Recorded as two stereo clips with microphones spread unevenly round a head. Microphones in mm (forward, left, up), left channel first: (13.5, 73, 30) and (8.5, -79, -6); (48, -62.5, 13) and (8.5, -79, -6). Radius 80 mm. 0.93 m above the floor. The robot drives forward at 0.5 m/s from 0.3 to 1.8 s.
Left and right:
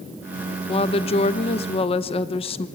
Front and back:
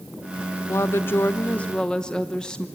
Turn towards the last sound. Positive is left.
turn(degrees=130)